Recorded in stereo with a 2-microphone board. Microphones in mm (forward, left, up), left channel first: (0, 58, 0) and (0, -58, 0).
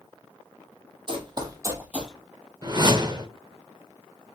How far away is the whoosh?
About 0.5 m.